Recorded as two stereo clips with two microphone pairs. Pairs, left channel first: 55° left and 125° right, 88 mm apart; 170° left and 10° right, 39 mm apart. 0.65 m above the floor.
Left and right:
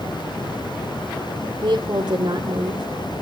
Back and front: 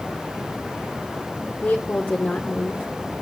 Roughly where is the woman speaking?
Behind right.